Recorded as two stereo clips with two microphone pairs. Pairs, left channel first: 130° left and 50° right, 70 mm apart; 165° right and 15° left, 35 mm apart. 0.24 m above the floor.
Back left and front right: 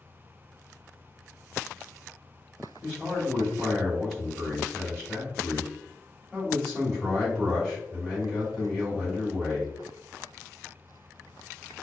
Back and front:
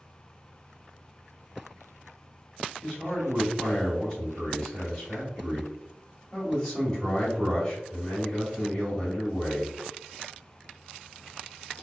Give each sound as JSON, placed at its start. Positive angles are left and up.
{"t": 2.8, "sound": "a man speaking", "azimuth_deg": -155, "distance_m": 1.6}